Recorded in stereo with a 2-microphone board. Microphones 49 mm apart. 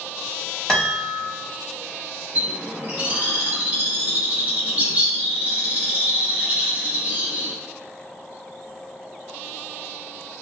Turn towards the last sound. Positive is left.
turn(degrees=-35)  # may be behind; listen again after turning